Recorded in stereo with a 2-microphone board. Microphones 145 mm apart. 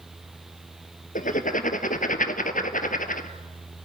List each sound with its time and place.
1.1 s writing: 65° left (ahead or behind), 1.2 m